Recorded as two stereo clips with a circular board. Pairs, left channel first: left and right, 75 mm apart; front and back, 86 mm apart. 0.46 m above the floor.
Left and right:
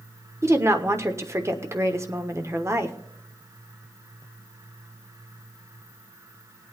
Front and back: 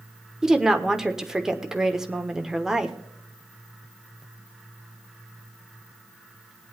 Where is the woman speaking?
100° right, 1.1 m.